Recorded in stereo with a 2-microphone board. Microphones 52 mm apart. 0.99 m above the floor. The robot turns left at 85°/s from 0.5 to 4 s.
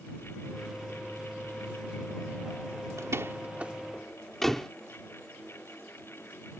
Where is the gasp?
I don't hear a gasp.